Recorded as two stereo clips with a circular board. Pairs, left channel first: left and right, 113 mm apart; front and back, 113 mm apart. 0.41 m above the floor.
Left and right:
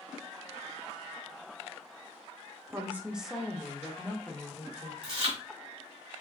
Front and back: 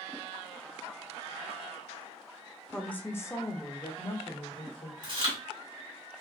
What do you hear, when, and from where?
2.7 s a woman speaking: 75° right, 0.8 m; by 4.9 s 35° left, 1.4 m
5.0 s chewing: 130° right, 2 m